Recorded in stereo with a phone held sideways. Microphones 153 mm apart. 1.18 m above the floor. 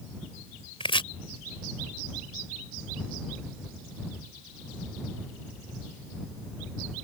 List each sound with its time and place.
0.8 s chopping: 35° left (ahead or behind)